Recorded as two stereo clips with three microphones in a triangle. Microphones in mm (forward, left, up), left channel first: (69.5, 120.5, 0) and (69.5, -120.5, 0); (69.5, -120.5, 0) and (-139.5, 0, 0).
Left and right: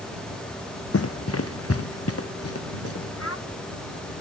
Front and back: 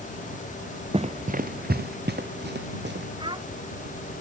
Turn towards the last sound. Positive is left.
turn(degrees=80)